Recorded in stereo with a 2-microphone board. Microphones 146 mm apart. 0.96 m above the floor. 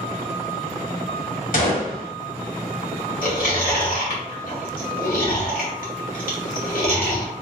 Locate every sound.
1.5 s a gunshot: 65° left (ahead or behind), 1.2 m
3.2 s chewing: 75° left (ahead or behind), 2.0 m